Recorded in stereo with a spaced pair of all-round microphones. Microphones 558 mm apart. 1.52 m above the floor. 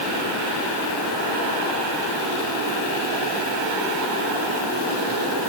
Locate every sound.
Only background noise.